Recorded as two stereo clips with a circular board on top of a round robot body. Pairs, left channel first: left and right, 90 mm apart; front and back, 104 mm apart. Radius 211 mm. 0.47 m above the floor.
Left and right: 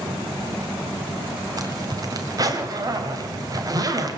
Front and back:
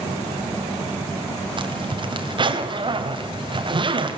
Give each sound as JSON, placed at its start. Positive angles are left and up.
{"t": 1.6, "sound": "a zipper", "azimuth_deg": -140, "distance_m": 2.0}